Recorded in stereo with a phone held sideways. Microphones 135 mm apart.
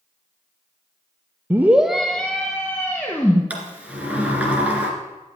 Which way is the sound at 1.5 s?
15° right (ahead or behind).